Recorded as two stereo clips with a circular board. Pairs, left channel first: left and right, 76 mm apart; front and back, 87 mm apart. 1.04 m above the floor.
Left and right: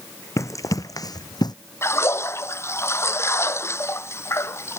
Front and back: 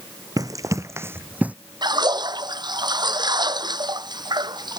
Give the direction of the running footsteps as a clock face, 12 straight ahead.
7 o'clock.